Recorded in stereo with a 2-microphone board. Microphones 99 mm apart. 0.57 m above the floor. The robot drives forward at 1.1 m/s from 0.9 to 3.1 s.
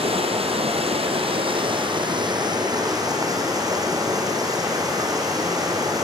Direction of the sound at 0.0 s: 75° right (ahead or behind).